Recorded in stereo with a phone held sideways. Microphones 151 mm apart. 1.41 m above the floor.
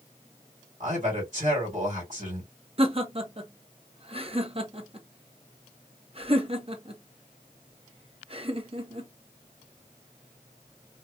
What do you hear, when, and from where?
0.8 s a man speaking: 50° right (ahead or behind), 1.8 m
2.8 s laughter: 40° right (ahead or behind), 0.9 m